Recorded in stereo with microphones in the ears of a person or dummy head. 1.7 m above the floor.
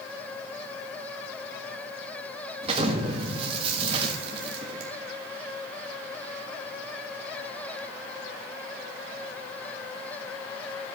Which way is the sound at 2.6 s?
35° right (ahead or behind).